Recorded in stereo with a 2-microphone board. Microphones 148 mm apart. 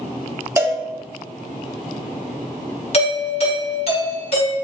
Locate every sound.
0.6 s a cowbell: 15° right (ahead or behind), 0.6 m
2.9 s a doorbell: 40° left (ahead or behind), 1.4 m